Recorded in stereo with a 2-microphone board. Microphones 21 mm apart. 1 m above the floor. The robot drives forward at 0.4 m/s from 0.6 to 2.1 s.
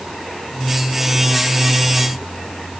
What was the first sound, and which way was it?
Only background noise.